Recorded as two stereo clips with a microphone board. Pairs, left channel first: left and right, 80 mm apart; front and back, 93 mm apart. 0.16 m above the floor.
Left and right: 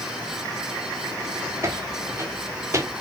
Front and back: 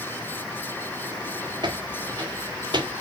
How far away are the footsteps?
About 3 m.